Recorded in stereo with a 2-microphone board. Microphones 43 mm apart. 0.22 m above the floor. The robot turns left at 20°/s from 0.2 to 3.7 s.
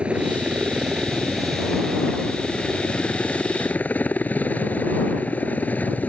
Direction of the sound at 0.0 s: 155° right.